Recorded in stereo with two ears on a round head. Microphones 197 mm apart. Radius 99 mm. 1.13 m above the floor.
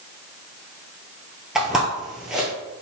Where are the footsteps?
Centre (ahead or behind), 1.4 m.